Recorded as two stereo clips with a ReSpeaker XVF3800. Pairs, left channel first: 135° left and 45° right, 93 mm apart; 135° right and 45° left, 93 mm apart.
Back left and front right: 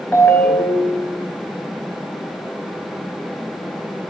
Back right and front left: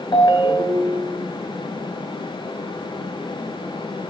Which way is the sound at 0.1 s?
160° right.